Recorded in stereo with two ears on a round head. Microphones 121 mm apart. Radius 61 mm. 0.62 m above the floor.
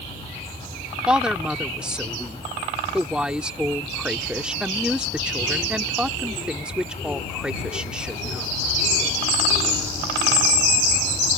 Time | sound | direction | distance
1.1 | a woman speaking | 5° right (ahead or behind) | ?